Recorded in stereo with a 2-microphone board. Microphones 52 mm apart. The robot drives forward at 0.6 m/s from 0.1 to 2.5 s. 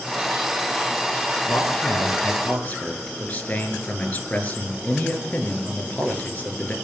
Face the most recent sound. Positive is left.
turn(degrees=30)  # may be behind; listen again after turning